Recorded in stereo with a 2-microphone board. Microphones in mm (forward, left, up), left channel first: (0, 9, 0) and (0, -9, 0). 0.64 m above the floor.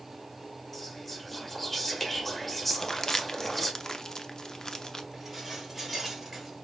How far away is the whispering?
About 1.3 m.